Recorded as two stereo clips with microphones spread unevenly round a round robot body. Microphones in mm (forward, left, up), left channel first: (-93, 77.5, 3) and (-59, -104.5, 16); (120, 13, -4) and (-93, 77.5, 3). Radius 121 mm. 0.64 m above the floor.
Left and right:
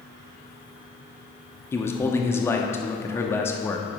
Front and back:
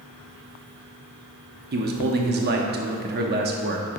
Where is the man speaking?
165° left, 0.9 m.